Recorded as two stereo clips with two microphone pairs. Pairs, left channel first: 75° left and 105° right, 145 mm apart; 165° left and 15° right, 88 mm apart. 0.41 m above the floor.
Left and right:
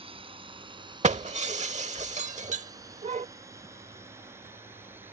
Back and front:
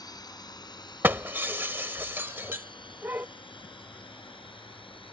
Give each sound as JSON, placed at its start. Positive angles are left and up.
{"t": 0.0, "sound": "a drone", "azimuth_deg": -155}
{"t": 1.0, "sound": "breaking glass", "azimuth_deg": -75}